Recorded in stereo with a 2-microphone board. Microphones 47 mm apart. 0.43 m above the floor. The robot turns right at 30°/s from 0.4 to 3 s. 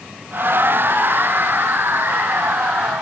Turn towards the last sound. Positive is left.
No sound to turn to.